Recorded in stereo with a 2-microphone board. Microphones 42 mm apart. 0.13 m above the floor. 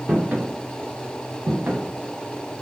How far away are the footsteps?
About 0.7 m.